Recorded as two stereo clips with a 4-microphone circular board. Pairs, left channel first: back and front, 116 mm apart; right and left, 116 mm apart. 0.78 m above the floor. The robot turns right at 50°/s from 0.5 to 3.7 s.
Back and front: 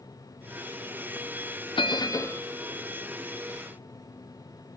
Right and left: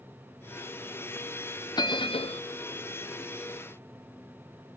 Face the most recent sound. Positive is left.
turn(degrees=-45)